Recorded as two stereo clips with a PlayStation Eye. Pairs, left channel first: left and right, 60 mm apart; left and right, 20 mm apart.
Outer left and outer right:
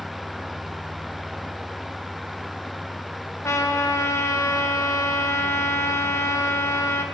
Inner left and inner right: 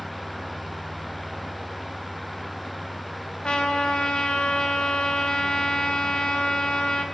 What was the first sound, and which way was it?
A trumpet, 55° left (ahead or behind).